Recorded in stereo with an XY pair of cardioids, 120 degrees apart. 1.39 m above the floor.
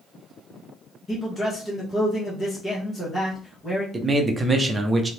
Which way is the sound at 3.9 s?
20° right.